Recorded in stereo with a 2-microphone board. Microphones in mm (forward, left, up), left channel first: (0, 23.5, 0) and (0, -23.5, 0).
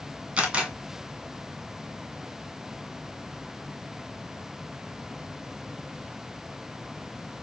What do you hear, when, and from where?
0.4 s a camera shutter: 20° right (ahead or behind), 1.6 m